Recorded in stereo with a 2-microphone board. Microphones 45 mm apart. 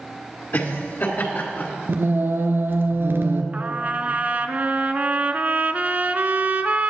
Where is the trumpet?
40° right (ahead or behind), 0.6 m.